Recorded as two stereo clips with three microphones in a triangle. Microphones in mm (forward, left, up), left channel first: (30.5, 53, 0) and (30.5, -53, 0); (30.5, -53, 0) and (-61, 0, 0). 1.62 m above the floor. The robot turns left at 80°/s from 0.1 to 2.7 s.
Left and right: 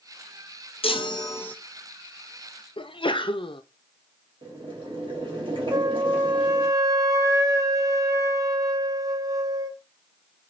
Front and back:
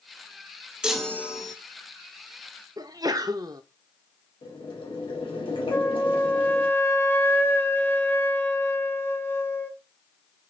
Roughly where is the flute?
Right.